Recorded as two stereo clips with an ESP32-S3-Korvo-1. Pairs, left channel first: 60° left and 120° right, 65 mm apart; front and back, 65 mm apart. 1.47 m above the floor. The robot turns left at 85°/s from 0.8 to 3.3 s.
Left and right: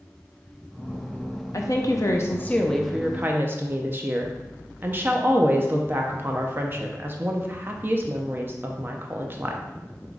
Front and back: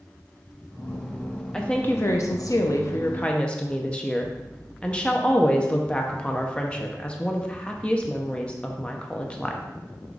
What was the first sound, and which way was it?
A woman speaking, 80° left.